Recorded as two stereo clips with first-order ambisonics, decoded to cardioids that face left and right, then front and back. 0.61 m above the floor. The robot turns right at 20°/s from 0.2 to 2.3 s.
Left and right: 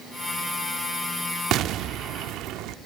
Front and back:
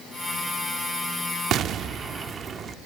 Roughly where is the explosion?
Behind right.